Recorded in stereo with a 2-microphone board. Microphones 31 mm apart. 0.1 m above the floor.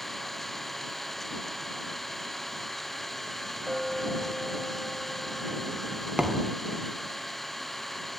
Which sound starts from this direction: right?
A thud, at 6.2 s.